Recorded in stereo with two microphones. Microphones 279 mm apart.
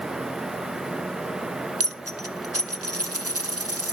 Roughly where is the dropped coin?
Right.